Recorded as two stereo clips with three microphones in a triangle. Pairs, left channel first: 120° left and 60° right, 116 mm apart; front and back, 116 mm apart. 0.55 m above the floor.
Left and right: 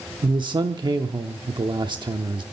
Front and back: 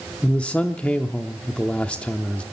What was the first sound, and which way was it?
A man speaking, 75° right.